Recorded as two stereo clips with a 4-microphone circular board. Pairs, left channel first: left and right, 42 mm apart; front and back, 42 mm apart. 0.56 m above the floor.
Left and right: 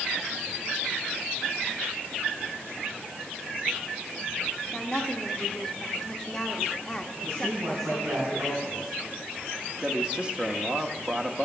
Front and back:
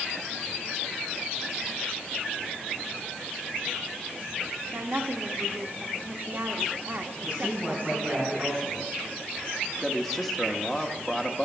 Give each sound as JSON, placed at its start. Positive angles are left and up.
{"t": 4.7, "sound": "a woman speaking", "azimuth_deg": 165, "distance_m": 1.0}
{"t": 7.2, "sound": "a man speaking", "azimuth_deg": -110, "distance_m": 5.5}
{"t": 9.8, "sound": "a man speaking", "azimuth_deg": -90, "distance_m": 0.8}